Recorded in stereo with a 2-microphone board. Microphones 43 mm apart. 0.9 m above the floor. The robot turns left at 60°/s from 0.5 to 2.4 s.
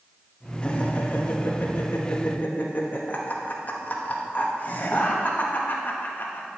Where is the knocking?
No knocking in this recording.